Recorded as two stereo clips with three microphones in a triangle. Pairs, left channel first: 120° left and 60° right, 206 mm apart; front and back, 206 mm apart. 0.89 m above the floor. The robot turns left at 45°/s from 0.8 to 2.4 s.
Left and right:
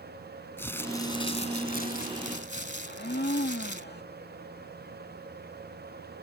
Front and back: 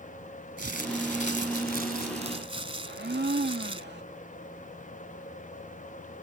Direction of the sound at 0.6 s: 165° right.